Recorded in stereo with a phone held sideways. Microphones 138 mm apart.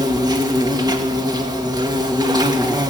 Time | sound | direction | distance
0.0 | an insect | 30° right (ahead or behind) | 2.5 m